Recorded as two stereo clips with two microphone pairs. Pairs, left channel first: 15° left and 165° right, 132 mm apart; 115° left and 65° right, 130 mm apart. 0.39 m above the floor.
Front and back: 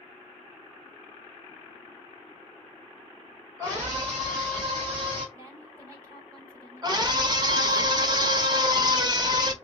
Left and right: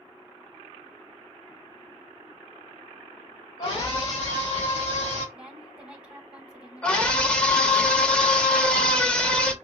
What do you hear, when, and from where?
3.6 s a scream: 145° left, 1.8 m; by 5.2 s 155° left, 3.5 m
5.3 s a woman speaking: 135° right, 1.4 m
6.8 s a scream: 170° right, 0.9 m